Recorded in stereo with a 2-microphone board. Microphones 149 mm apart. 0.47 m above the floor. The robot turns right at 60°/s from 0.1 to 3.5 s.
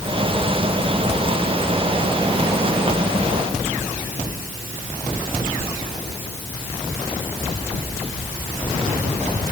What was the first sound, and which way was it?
Only background noise.